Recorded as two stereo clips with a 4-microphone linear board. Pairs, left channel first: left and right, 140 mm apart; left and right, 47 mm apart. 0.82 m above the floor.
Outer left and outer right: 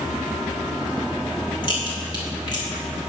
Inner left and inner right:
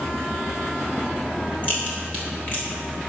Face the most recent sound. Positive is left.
turn(degrees=35)  # may be behind; listen again after turning